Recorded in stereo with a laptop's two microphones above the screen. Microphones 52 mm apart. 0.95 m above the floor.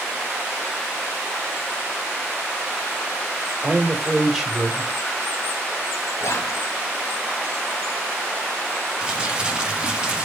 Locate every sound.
3.6 s a man speaking: 5° right (ahead or behind), 1.6 m
6.2 s whispering: 65° left (ahead or behind), 1.2 m
9.0 s crumpling: 20° right (ahead or behind), 0.9 m